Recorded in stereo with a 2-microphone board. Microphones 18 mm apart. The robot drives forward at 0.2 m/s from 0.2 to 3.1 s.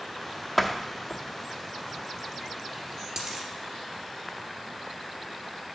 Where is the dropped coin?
25° right (ahead or behind), 2.5 m.